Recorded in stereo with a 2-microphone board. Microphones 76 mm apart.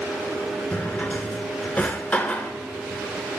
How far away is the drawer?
About 0.6 m.